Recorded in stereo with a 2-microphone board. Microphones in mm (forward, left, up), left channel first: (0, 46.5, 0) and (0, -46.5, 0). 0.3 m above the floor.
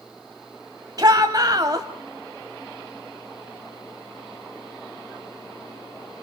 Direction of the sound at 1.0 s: 40° right (ahead or behind).